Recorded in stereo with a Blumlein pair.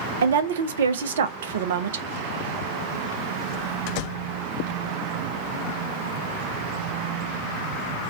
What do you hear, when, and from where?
0.2 s a woman speaking: 60° right, 0.5 m